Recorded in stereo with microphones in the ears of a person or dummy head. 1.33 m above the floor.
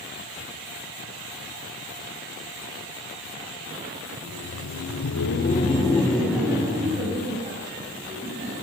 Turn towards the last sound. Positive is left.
turn(degrees=-40)  # may be behind; listen again after turning